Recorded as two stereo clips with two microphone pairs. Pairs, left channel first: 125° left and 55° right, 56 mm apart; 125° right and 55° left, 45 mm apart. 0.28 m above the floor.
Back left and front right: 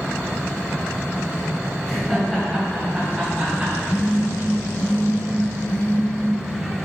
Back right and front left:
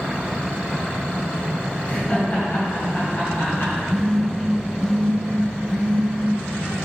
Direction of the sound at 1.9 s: 145° right.